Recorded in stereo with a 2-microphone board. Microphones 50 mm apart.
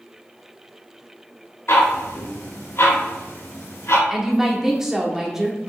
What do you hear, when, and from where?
1.7 s ticking: 60° left (ahead or behind), 0.9 m
4.1 s a woman speaking: 10° right (ahead or behind), 0.7 m